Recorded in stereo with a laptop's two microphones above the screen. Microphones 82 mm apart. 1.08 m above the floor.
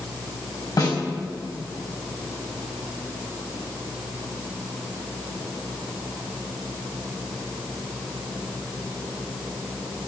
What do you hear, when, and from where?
0.8 s a snare drum: 55° left (ahead or behind), 4.5 m